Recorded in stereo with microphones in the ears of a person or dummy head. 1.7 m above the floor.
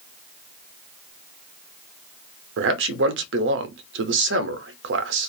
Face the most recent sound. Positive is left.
turn(degrees=-70)  # may be behind; listen again after turning